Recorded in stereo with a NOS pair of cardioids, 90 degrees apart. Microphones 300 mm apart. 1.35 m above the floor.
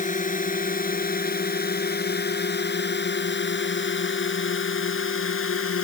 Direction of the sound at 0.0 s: 25° left.